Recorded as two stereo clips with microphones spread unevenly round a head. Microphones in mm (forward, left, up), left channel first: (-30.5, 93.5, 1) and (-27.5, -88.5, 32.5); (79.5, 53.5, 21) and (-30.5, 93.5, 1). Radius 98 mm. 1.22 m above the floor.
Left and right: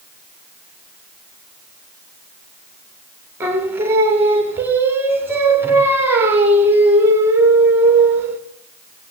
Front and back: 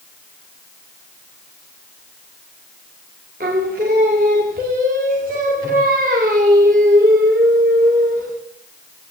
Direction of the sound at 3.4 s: 165° right.